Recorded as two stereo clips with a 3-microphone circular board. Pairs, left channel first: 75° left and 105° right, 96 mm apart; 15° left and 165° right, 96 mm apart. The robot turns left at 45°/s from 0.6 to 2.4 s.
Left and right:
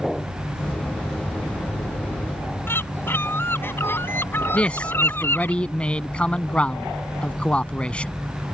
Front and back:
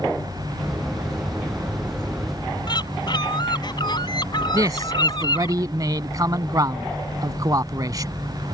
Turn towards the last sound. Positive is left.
turn(degrees=150)